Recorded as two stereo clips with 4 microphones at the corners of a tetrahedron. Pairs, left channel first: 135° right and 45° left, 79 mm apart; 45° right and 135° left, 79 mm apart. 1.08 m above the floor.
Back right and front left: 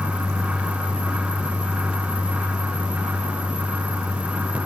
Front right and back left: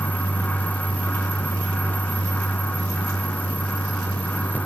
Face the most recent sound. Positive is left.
No sound to turn to.